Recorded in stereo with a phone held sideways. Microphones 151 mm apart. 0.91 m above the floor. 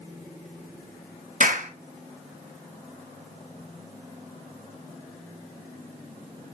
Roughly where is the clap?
Right.